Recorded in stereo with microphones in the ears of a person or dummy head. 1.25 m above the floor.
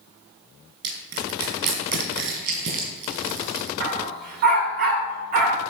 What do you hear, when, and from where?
0.8 s crushing: 60° right (ahead or behind), 4 m
3.8 s a dog barking: 45° right (ahead or behind), 1.3 m